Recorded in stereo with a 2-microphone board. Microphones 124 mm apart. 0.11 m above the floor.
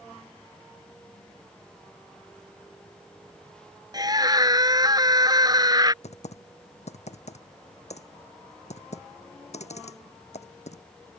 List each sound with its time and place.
3.9 s a scream: 35° right (ahead or behind)
6.0 s typing on a keyboard: 70° left (ahead or behind)